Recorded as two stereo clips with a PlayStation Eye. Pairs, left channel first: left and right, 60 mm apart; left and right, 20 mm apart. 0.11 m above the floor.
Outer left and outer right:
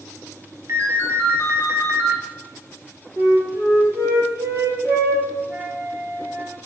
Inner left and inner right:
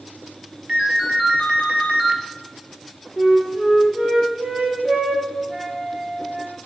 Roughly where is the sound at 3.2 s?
Right.